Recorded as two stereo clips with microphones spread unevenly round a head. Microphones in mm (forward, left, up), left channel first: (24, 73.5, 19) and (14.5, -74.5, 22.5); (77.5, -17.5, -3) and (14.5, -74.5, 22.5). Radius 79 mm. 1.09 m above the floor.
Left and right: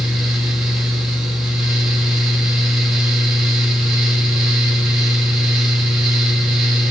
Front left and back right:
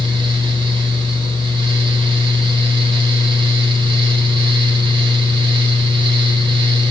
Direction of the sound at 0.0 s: Straight behind.